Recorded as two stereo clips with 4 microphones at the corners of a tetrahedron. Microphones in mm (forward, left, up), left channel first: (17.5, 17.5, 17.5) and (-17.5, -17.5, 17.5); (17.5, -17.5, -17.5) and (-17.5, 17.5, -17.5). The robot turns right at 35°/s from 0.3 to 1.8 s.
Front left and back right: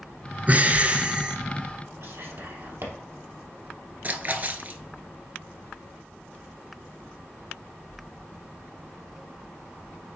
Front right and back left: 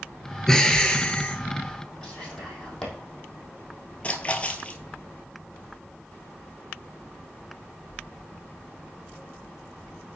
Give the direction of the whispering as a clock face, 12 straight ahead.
4 o'clock.